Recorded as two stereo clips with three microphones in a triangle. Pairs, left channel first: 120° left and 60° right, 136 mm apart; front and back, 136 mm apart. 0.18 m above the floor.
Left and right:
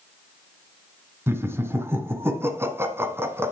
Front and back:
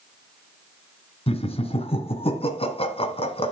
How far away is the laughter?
About 1.5 m.